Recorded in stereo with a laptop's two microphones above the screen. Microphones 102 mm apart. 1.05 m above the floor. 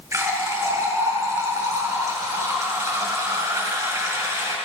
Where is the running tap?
30° right (ahead or behind), 4 m.